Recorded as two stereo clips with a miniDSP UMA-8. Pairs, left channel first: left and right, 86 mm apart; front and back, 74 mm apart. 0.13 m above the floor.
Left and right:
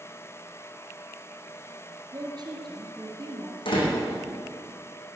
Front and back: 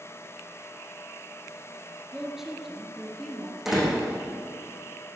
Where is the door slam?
95° left, 5.5 m.